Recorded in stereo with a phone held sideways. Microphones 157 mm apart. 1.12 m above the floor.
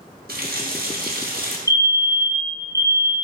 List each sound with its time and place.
0.3 s a running tap: 75° right (ahead or behind), 1.2 m
1.7 s a fire alarm: 20° left (ahead or behind), 1.1 m